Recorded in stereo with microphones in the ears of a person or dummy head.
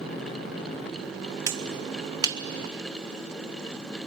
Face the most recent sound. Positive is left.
turn(degrees=-25)  # may be behind; listen again after turning